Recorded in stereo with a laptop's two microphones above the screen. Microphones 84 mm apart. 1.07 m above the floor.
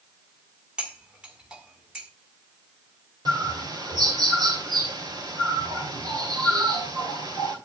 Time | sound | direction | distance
0.8 | cutlery clinking | 10° right (ahead or behind) | 1.8 m
3.2 | a bird | 55° right (ahead or behind) | 2.5 m